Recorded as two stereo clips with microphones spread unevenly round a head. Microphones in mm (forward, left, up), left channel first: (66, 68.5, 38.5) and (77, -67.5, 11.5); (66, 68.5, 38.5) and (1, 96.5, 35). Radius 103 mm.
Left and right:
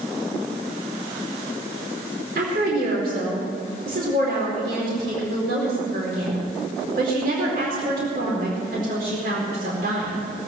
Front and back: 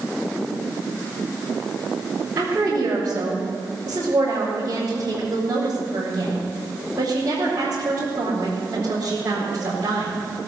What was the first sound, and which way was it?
A woman speaking, 125° right.